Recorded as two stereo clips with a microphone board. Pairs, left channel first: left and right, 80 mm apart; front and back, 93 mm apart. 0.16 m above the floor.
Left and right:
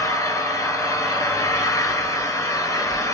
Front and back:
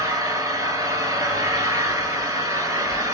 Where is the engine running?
130° left, 1.1 m.